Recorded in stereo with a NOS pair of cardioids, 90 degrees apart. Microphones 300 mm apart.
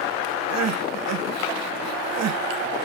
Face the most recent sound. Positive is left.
turn(degrees=-60)